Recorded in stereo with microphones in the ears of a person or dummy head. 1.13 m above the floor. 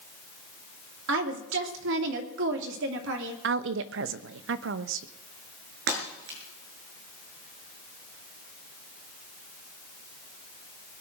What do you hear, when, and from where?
1.1 s a woman speaking: 70° right (ahead or behind), 2.5 m
3.4 s a woman speaking: 65° right (ahead or behind), 1.0 m
5.9 s breaking glass: 65° right (ahead or behind), 6 m